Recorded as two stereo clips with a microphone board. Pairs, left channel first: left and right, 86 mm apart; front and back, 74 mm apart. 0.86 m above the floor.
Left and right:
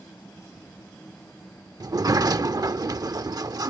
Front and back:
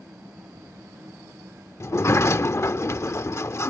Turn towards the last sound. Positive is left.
turn(degrees=-50)